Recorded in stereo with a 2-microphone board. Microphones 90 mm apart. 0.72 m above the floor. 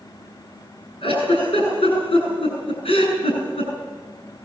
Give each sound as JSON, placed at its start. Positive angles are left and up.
{"t": 1.0, "sound": "a giggle", "side_deg": 75, "distance_m": 9.0}